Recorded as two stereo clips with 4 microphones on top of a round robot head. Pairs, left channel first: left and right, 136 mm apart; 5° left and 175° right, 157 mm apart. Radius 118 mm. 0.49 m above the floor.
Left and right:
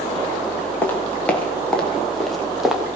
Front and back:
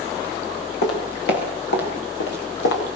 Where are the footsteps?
15° left, 7 m; by 2.8 s 5° right, 5.5 m.